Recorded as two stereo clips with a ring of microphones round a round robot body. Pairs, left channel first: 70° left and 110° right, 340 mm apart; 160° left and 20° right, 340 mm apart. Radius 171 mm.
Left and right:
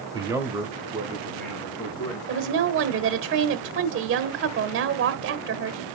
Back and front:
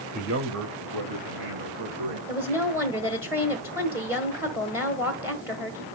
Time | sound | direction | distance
0.1 | a man speaking | 55° right | 1.1 m
2.3 | a woman speaking | 100° right | 1.2 m